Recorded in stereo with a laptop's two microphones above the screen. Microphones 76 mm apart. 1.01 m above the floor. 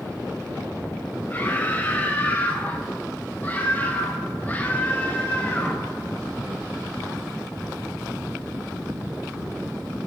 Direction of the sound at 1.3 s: 25° left (ahead or behind).